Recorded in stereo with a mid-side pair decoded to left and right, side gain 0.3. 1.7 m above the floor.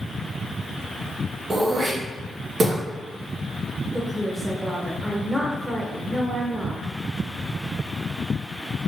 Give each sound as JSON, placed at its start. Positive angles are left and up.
{"t": 1.5, "sound": "throat clearing", "azimuth_deg": -60, "distance_m": 1.3}
{"t": 3.9, "sound": "a woman speaking", "azimuth_deg": -15, "distance_m": 1.4}